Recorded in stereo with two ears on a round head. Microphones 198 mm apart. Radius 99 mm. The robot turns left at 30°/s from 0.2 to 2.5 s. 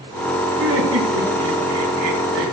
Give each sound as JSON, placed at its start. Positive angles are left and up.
{"t": 0.6, "sound": "laughter", "azimuth_deg": -60, "distance_m": 7.0}